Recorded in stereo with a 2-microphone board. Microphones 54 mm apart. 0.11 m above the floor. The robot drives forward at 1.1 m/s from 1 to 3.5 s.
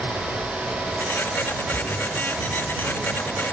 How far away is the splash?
About 2 m.